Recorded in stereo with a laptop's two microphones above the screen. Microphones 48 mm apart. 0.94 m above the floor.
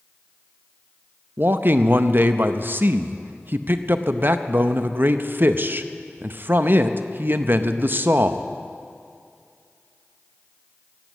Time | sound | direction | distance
1.4 | a man speaking | 50° right (ahead or behind) | 0.6 m